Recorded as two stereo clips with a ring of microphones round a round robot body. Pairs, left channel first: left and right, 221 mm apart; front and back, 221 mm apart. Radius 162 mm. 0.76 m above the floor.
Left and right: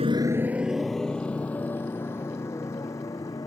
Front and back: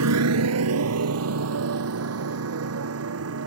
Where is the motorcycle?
165° right; by 3.5 s 170° left.